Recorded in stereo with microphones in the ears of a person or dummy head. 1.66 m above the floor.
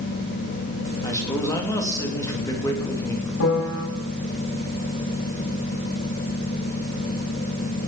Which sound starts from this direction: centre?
A man speaking, at 1.0 s.